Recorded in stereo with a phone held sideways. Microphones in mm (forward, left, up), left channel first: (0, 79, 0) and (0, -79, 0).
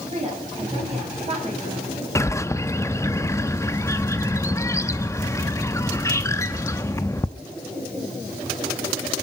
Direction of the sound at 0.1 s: 40° right (ahead or behind).